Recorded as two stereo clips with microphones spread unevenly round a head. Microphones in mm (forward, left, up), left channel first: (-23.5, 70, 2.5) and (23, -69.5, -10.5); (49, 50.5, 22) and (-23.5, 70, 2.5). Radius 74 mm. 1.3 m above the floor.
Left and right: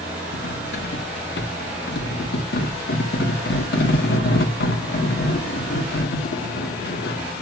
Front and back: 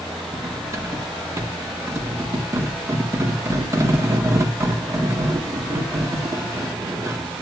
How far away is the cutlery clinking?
About 1.6 m.